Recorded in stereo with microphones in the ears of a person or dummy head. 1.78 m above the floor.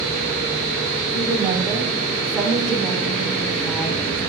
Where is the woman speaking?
20° right (ahead or behind), 6 m; by 4.2 s 5° left (ahead or behind), 6.5 m.